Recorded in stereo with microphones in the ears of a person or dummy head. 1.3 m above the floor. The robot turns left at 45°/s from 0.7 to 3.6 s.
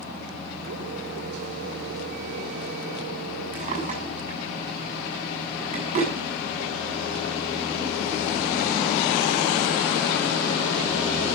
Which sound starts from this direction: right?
A drawer, at 3.5 s.